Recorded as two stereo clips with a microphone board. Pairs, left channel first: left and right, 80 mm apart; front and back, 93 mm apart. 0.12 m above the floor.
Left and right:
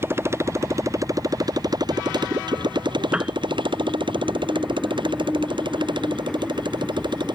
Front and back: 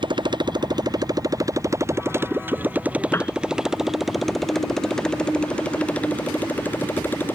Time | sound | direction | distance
0.0 | a motorcycle | 150° right | ?
3.1 | a piano | 25° right | ?